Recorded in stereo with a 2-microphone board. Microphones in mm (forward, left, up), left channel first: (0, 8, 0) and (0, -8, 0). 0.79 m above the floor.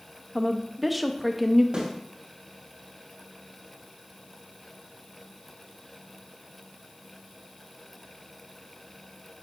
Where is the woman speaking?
Centre (ahead or behind), 0.6 m.